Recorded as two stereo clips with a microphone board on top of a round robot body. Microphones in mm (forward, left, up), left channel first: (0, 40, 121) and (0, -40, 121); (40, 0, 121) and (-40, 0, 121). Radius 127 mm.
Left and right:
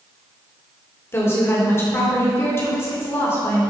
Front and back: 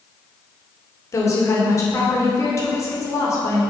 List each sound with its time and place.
1.1 s a woman speaking: 40° left, 2 m